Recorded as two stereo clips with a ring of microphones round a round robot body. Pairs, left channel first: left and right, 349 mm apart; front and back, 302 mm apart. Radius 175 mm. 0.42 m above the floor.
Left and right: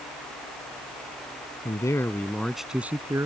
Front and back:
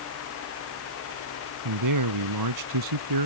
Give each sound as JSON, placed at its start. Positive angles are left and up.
{"t": 1.6, "sound": "a man speaking", "azimuth_deg": 170}